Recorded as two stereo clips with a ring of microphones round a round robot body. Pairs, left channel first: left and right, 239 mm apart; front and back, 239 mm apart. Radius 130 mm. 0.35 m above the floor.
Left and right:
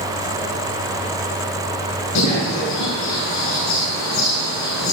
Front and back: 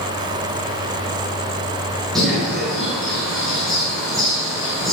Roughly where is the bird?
Left.